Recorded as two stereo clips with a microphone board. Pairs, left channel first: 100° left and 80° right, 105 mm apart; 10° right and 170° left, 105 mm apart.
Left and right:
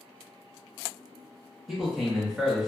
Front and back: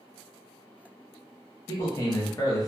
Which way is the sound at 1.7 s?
Straight ahead.